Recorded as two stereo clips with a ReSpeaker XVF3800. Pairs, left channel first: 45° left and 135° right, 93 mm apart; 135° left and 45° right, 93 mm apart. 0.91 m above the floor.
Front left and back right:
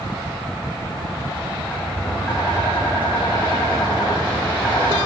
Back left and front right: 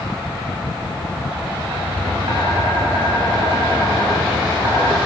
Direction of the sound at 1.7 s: 30° right.